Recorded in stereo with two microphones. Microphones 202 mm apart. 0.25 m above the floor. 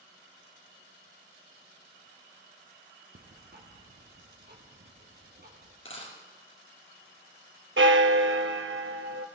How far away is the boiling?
I don't hear boiling.